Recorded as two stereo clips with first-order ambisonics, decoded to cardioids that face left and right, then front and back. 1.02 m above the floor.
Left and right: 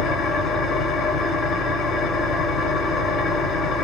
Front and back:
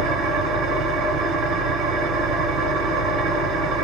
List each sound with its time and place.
0.0 s an engine running: 145° left, 1.0 m